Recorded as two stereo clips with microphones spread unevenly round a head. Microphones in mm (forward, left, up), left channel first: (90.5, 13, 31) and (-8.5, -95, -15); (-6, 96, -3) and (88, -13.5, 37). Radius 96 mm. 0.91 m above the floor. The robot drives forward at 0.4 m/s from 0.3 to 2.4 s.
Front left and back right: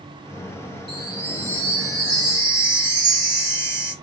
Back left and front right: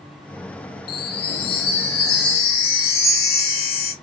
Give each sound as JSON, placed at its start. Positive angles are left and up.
{"t": 0.9, "sound": "a chime", "azimuth_deg": 140, "distance_m": 0.6}